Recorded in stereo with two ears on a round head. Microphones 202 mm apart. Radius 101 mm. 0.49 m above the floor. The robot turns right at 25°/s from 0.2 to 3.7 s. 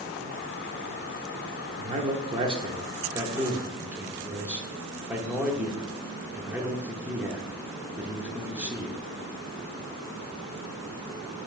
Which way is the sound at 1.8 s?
60° right.